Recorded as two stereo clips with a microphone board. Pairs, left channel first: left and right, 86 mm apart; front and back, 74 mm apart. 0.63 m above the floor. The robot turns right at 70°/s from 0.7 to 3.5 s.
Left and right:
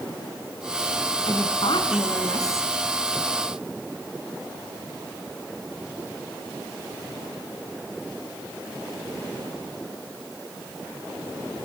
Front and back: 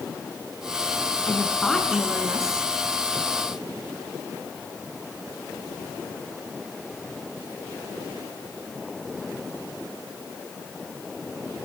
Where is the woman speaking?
55° left, 5.5 m; by 2.7 s 155° left, 5.5 m.